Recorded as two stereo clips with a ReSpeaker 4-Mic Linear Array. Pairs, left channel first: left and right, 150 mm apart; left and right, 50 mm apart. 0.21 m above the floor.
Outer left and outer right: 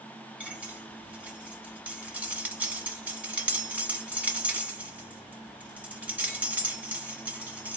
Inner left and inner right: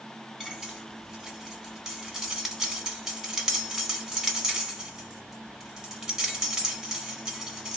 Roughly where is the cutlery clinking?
Centre.